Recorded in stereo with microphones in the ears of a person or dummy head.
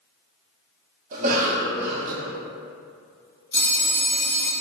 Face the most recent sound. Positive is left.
turn(degrees=10)  # may be behind; listen again after turning